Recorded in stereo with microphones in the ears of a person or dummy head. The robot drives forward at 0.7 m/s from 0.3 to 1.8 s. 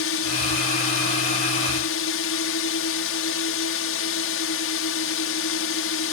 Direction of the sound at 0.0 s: 65° left (ahead or behind).